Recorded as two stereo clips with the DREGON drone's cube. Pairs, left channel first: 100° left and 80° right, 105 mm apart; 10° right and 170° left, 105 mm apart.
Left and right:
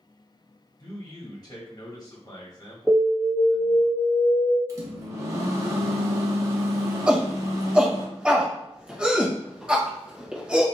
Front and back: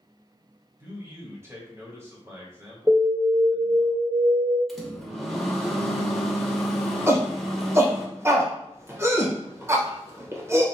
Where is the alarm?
160° right, 1.7 m.